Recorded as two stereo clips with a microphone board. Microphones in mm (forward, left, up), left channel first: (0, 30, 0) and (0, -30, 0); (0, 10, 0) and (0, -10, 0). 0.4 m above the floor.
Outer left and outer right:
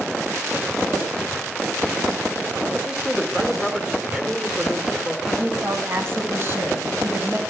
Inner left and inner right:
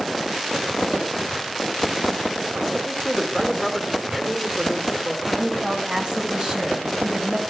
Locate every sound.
2.7 s a man speaking: 10° right (ahead or behind), 1.3 m
5.3 s a woman speaking: 40° right (ahead or behind), 3 m